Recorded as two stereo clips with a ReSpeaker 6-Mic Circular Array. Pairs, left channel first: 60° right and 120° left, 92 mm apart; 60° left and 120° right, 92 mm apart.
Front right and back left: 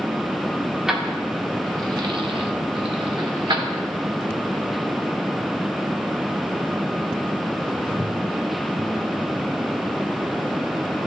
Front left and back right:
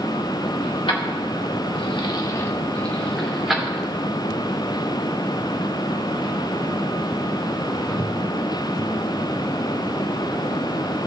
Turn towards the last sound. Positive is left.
turn(degrees=155)